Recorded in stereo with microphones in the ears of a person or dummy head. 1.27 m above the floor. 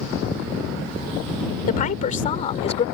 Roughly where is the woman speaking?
Left.